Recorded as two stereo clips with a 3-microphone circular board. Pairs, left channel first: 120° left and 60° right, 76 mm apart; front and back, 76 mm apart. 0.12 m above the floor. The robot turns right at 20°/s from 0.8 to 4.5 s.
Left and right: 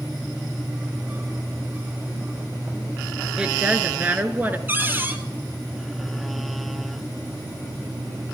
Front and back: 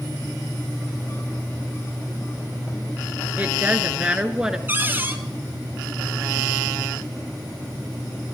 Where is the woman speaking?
125° right, 1.5 m; by 4.6 s 105° right, 1.5 m.